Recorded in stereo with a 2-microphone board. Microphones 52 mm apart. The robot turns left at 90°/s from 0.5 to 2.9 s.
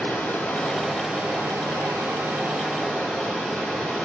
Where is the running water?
30° left, 5 m; by 4.0 s 170° left, 5 m.